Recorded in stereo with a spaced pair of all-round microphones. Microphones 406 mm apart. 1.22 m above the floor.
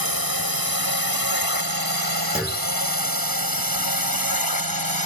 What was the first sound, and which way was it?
A drone, 60° right (ahead or behind).